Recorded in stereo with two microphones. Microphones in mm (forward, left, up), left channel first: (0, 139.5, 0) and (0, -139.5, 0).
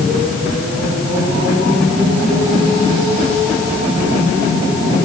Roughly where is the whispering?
I don't hear whispering.